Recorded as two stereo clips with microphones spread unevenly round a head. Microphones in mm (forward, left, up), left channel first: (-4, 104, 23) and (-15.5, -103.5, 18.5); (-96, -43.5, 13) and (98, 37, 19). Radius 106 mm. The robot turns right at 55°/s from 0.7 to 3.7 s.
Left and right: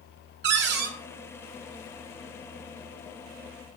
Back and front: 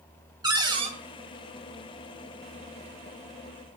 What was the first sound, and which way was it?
A cupboard door, 50° right.